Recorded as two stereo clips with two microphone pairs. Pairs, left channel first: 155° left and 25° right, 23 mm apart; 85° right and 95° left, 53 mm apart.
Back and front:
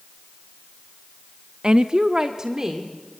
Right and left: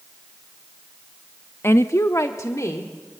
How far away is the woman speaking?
About 0.6 m.